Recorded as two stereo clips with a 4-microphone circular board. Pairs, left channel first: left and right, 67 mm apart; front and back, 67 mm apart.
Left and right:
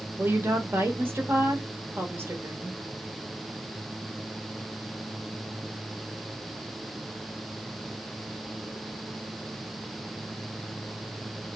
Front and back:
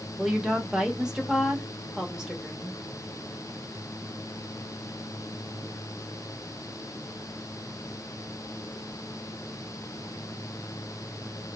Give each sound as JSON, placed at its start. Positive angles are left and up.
{"t": 0.2, "sound": "a woman speaking", "azimuth_deg": -105, "distance_m": 0.9}